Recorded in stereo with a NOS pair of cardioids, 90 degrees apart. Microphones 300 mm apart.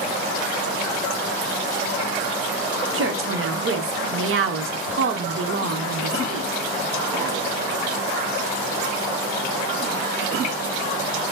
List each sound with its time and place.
2.9 s a woman speaking: 45° right, 0.9 m